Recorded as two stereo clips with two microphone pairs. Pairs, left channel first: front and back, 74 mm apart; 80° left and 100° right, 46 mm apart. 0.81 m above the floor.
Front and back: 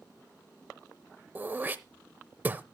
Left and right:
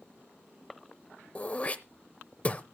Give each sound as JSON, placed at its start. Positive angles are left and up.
{"t": 1.4, "sound": "throat clearing", "azimuth_deg": 130, "distance_m": 0.7}